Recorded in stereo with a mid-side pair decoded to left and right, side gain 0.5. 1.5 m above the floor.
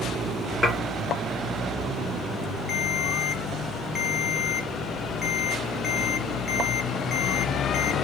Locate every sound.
0.6 s dishes clattering: 30° left, 2 m
2.7 s a ringtone: 30° left, 1.2 m